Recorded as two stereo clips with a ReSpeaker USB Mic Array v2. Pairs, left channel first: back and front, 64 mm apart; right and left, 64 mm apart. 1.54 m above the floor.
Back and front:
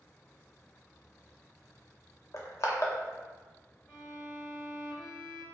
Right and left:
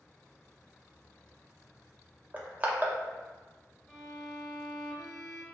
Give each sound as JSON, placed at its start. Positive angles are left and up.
{"t": 2.3, "sound": "crushing", "azimuth_deg": 150, "distance_m": 0.6}
{"t": 3.9, "sound": "a violin", "azimuth_deg": -160, "distance_m": 1.1}